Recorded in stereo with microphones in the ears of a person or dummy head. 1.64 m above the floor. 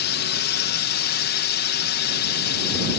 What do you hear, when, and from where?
0.0 s a drone: 55° left (ahead or behind)